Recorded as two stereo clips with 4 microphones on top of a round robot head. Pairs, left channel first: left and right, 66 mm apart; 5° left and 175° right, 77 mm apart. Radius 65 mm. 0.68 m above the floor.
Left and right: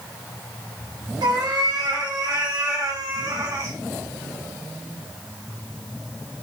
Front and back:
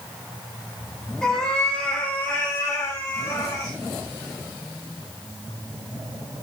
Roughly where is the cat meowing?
Right.